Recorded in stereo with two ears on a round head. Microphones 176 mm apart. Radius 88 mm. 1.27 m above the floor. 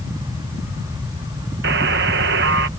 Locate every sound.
1.6 s a buzzer: 55° right (ahead or behind)